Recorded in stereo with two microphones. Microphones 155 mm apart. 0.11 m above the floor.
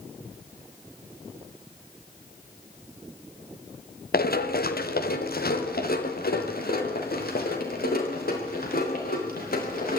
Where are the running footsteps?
85° left, 2 m; by 10.0 s 80° left, 9 m.